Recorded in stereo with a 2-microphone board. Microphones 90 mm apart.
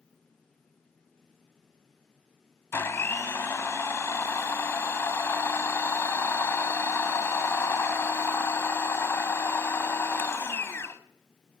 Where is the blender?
30° left (ahead or behind), 0.7 m.